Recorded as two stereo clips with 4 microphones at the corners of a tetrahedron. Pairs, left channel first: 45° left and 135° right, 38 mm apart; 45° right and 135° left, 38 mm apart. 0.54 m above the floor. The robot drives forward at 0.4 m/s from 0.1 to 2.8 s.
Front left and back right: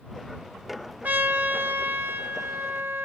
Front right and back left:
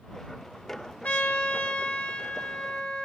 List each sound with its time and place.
1.0 s a trumpet: 90° right, 2.0 m; by 3.1 s 110° right, 2 m